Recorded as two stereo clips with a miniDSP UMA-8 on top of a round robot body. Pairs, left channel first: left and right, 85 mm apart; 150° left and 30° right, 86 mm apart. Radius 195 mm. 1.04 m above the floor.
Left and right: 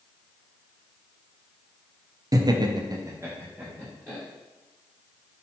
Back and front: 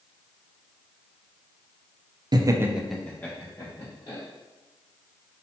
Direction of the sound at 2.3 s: 55° right.